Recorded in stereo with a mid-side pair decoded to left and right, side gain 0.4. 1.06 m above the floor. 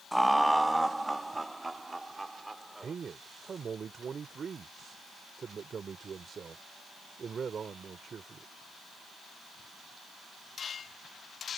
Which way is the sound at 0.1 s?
Straight ahead.